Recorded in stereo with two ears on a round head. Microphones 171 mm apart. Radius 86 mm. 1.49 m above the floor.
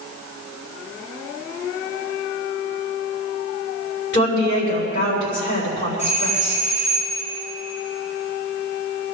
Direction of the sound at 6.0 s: 40° left (ahead or behind).